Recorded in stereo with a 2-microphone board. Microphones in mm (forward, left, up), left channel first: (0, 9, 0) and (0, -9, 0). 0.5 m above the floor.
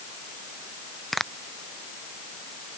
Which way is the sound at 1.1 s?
10° left (ahead or behind).